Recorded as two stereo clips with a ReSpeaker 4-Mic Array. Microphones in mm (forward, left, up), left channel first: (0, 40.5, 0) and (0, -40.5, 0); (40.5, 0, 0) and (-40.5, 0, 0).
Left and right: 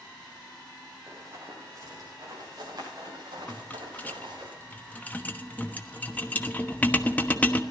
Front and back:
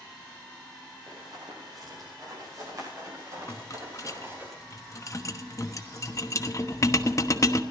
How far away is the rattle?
About 1.1 m.